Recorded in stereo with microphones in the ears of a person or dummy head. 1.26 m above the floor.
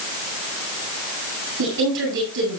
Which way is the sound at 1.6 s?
60° right (ahead or behind).